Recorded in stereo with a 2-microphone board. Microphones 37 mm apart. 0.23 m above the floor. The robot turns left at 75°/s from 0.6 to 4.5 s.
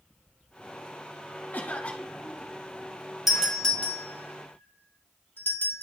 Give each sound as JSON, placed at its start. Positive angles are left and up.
{"t": 1.5, "sound": "a cough", "azimuth_deg": 70, "distance_m": 2.5}
{"t": 3.3, "sound": "a doorbell", "side_deg": -5, "distance_m": 3.5}